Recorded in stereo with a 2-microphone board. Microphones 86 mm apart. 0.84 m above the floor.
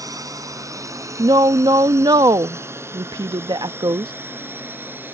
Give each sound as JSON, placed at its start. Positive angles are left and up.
{"t": 0.0, "sound": "a drone", "side_deg": -45}
{"t": 1.2, "sound": "a woman speaking", "side_deg": -55}